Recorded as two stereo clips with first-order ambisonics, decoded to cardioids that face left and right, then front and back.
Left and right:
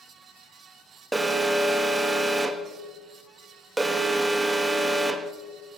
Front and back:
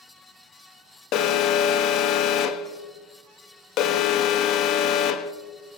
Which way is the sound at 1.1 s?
15° right.